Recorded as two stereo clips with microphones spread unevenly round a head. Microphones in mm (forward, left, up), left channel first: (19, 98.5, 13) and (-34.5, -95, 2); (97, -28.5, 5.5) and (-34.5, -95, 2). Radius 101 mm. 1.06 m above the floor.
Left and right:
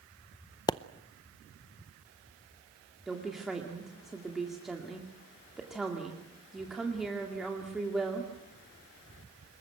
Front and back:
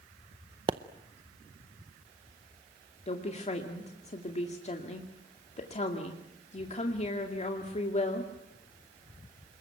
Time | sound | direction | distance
0.7 | a pop | 145° left | 0.6 m
3.1 | a woman speaking | 15° right | 2 m